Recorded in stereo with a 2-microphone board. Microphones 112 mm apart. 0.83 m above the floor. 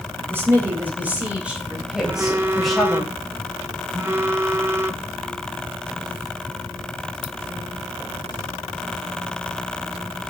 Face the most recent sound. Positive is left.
turn(degrees=-25)  # may be behind; listen again after turning